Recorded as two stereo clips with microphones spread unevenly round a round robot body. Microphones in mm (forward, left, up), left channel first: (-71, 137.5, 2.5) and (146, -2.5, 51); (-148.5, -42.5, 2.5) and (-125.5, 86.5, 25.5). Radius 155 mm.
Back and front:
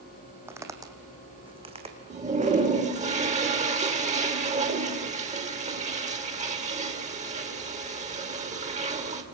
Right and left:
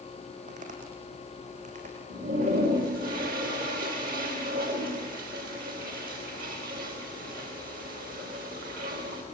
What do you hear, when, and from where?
0.5 s footsteps: 45° left, 3 m; by 3.1 s 20° left, 4 m
2.1 s a toilet flushing: 30° left, 3 m